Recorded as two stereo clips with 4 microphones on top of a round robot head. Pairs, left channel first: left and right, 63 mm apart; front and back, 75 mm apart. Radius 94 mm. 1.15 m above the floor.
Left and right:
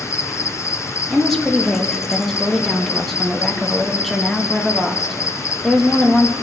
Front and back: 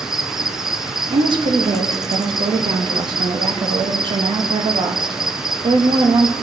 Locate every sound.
0.0 s an insect: 95° left, 0.7 m
1.1 s a woman speaking: 175° left, 1.5 m